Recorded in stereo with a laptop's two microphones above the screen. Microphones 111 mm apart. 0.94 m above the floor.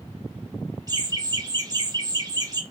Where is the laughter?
35° right (ahead or behind), 1.3 m.